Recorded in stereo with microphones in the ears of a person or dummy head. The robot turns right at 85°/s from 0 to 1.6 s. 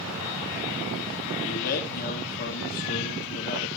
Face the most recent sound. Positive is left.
turn(degrees=45)  # may be behind; listen again after turning